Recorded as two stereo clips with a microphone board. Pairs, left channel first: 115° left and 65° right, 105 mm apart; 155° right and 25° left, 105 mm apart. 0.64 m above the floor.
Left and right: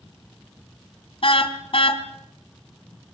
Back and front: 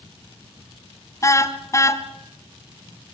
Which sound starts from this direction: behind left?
A car horn, at 1.2 s.